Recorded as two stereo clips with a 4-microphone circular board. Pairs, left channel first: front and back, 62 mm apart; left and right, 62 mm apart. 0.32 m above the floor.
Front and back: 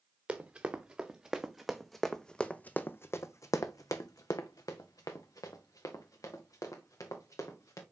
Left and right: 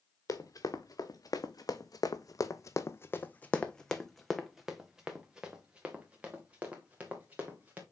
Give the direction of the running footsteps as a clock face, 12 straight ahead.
8 o'clock.